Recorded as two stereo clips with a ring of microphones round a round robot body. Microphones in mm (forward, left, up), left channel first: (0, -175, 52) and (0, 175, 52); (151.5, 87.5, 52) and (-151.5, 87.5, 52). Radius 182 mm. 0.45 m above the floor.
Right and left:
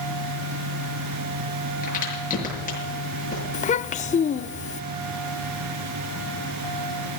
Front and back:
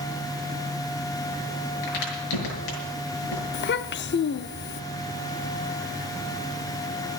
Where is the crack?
20° right, 6.5 m.